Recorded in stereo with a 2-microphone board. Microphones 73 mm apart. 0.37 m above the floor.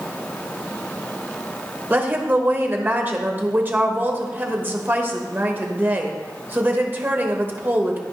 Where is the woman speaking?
25° right (ahead or behind), 1.0 m.